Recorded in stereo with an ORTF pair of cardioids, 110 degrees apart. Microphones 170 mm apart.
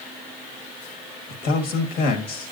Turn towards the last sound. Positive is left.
turn(degrees=70)